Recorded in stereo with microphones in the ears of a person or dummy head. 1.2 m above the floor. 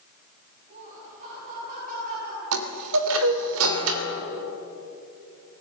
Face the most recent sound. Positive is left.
turn(degrees=-80)